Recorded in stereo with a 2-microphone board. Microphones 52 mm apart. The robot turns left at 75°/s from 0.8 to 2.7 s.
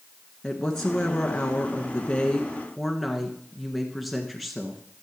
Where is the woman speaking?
10° left (ahead or behind), 1.3 m; by 4.8 s 5° left (ahead or behind), 1.3 m.